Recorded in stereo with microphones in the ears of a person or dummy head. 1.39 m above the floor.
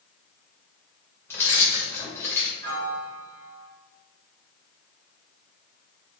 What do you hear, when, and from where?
1.3 s keys jangling: 15° left (ahead or behind), 0.8 m
2.6 s a piano: 55° right (ahead or behind), 1.1 m